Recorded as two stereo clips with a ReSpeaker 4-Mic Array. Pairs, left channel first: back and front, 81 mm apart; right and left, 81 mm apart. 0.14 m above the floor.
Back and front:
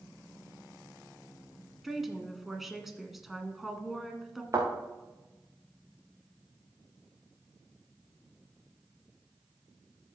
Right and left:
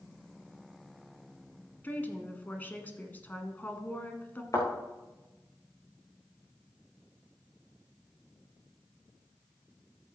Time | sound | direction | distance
1.8 | a woman speaking | 85° right | 1.3 m
4.5 | a thud | 45° right | 4.5 m